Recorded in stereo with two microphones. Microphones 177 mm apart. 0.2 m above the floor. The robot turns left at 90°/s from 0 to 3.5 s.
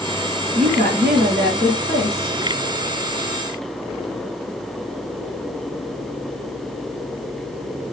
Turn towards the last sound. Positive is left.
turn(degrees=40)